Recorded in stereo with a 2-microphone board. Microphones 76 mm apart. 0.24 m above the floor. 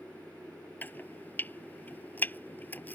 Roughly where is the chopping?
Left.